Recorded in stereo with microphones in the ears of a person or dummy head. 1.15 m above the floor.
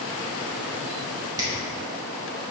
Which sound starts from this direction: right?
A finger snap, at 1.4 s.